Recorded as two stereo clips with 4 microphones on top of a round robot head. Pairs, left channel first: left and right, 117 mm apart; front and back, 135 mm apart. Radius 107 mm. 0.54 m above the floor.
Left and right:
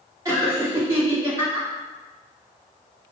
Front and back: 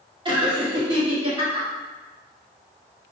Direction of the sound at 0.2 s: 140° right.